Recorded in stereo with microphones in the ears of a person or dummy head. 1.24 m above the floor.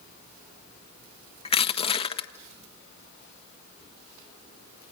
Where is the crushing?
30° left (ahead or behind), 1.4 m.